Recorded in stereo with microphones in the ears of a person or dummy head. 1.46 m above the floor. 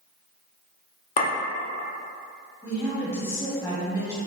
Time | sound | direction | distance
1.2 | a clink | 40° left (ahead or behind) | 0.6 m
2.6 | a woman speaking | 15° left (ahead or behind) | 1.0 m